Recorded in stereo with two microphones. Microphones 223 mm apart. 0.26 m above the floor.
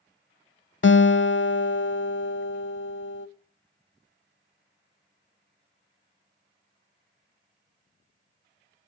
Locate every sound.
0.8 s a guitar: 60° left (ahead or behind), 0.6 m